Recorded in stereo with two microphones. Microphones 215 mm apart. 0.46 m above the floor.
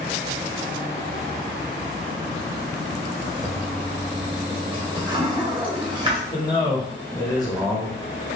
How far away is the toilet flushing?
About 0.9 m.